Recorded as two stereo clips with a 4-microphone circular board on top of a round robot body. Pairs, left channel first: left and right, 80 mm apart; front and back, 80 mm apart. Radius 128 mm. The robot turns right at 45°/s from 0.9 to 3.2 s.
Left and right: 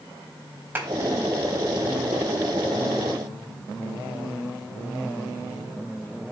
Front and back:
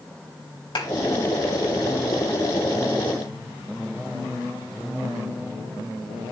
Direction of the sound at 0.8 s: 20° right.